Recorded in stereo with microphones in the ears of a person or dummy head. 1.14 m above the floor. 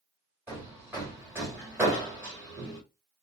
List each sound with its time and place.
0.5 s hammering: 5° right (ahead or behind), 1.3 m